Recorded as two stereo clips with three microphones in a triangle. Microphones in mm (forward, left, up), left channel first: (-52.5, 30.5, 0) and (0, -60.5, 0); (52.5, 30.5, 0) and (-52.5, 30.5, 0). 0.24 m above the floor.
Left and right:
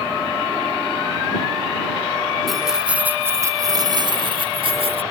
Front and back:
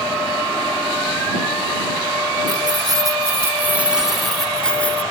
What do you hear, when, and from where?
2.5 s keys jangling: 150° right; by 5.0 s 75° right